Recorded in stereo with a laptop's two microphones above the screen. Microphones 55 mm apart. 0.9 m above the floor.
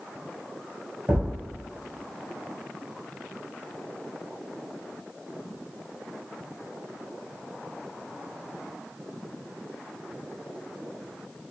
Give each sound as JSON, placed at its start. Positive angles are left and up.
{"t": 1.1, "sound": "a thud", "side_deg": -35, "distance_m": 1.0}